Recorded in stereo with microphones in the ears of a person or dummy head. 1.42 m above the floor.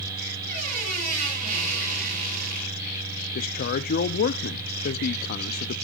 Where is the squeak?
40° right (ahead or behind), 7.5 m.